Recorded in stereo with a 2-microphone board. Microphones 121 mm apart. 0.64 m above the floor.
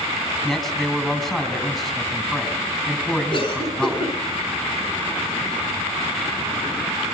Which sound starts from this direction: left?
A cough, at 3.3 s.